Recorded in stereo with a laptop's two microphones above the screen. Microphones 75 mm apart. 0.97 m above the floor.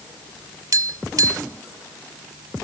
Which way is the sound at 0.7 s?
50° right (ahead or behind).